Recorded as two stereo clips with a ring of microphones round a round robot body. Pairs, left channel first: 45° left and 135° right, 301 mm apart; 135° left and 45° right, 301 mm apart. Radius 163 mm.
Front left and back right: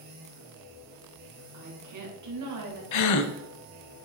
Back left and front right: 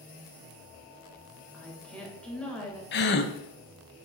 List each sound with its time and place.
1.5 s a woman speaking: 140° right, 2.5 m
2.9 s a gasp: 80° left, 0.6 m